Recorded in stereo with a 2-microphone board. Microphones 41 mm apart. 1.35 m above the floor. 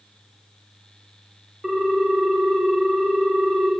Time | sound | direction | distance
1.6 | a ringtone | 10° right (ahead or behind) | 0.8 m